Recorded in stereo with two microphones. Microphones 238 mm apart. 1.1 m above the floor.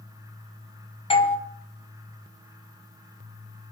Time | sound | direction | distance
1.1 | a doorbell | 20° left (ahead or behind) | 1.1 m